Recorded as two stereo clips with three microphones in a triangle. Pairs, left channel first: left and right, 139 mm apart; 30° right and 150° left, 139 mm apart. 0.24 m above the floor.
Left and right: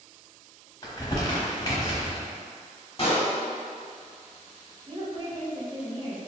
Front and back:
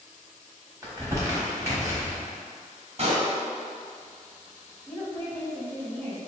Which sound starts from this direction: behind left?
A pop, at 3.0 s.